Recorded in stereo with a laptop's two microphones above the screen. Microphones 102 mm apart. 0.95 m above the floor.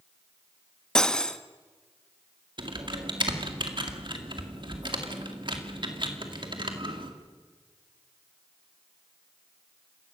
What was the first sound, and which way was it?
Cutlery clinking, 10° left (ahead or behind).